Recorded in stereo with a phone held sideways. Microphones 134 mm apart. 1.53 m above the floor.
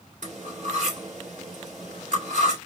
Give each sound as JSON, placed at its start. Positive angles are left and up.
{"t": 0.2, "sound": "cutlery clinking", "side_deg": -70, "distance_m": 2.5}